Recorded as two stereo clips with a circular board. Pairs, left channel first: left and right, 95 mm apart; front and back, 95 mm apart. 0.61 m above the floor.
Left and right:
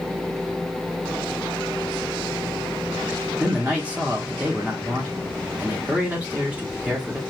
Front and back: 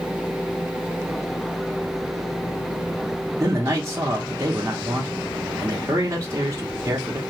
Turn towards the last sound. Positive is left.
turn(degrees=-155)